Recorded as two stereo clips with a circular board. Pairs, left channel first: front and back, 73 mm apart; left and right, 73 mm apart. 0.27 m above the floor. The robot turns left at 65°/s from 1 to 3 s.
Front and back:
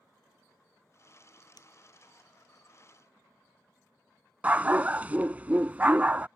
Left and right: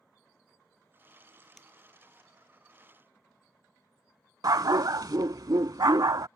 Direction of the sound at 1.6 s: 5° left.